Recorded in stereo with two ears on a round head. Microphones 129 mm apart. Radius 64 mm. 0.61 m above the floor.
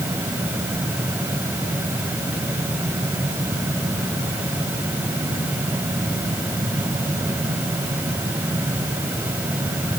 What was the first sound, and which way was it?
Only background noise.